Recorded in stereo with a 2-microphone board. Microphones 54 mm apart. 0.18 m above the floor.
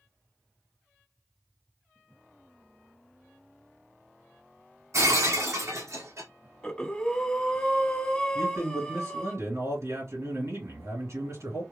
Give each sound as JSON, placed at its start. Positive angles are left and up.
{"t": 4.9, "sound": "breaking glass", "side_deg": -70, "distance_m": 1.7}
{"t": 6.6, "sound": "breathing", "side_deg": 20, "distance_m": 1.7}
{"t": 8.3, "sound": "a man speaking", "side_deg": -60, "distance_m": 3.0}